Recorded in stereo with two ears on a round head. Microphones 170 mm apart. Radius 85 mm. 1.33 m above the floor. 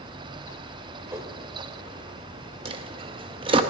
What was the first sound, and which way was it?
A whoosh, 15° right (ahead or behind).